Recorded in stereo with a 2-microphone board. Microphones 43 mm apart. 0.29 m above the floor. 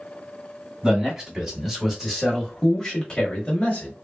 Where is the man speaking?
20° right (ahead or behind), 1.7 m; by 3.9 s 30° left (ahead or behind), 1.2 m.